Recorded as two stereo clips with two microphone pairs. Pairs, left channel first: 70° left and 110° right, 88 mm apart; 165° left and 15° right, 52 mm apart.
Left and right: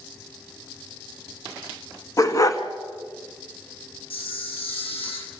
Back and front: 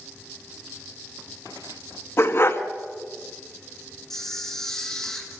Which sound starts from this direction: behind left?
A dog barking, at 2.2 s.